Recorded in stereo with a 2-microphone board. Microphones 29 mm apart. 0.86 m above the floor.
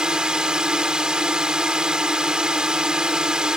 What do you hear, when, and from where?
0.0 s a drone: 30° right (ahead or behind)